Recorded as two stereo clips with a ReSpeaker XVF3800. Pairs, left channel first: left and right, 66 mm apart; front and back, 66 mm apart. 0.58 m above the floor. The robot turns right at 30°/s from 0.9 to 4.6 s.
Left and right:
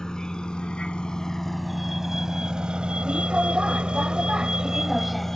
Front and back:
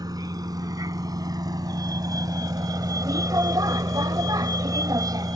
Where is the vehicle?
170° left; by 5.4 s 175° left.